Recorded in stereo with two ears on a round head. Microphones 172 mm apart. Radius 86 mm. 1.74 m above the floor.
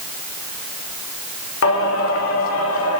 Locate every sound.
1.6 s singing: 80° left, 1.5 m